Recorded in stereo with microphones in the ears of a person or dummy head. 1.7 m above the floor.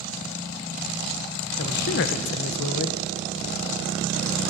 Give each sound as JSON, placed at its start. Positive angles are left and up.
{"t": 1.6, "sound": "a man speaking", "side_deg": 60, "distance_m": 1.2}